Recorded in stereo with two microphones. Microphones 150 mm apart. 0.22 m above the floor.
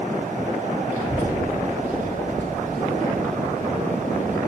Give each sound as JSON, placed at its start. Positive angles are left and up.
{"t": 0.9, "sound": "a child speaking", "side_deg": -65, "distance_m": 6.5}